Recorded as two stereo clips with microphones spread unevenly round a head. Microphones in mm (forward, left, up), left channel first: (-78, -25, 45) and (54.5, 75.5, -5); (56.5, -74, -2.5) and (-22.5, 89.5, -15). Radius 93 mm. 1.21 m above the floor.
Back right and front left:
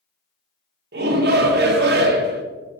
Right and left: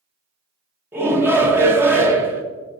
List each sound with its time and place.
0.9 s a shout: 40° left, 1.0 m